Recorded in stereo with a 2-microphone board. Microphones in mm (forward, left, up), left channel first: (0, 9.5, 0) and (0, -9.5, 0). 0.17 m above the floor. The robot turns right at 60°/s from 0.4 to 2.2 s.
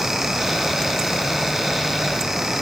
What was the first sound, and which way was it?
Only background noise.